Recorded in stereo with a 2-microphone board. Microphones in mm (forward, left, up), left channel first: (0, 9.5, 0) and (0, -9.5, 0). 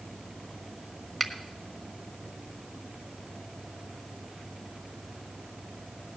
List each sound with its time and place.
1.2 s a finger snap: 5° left (ahead or behind), 1.4 m